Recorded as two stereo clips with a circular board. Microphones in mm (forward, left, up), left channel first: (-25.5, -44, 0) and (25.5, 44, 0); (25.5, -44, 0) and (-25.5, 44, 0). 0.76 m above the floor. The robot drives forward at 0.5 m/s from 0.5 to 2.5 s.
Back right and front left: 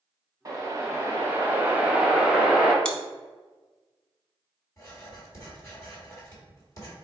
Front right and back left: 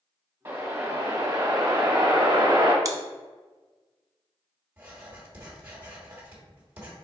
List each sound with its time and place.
0.5 s a whoosh: 70° left, 1.2 m; by 2.8 s 140° left, 1.4 m
2.9 s chewing: 160° left, 0.6 m
4.8 s writing: 175° right, 1.8 m